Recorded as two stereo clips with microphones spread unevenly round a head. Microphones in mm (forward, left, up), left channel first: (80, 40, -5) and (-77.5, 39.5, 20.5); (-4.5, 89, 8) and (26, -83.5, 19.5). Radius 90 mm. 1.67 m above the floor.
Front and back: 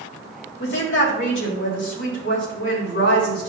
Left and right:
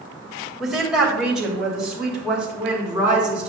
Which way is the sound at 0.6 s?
10° left.